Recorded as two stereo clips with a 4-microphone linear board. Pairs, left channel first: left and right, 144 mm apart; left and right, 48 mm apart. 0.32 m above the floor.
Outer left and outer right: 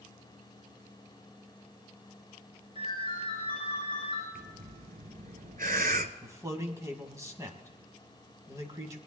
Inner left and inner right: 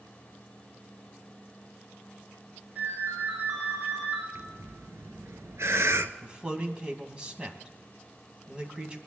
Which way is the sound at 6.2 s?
20° right (ahead or behind).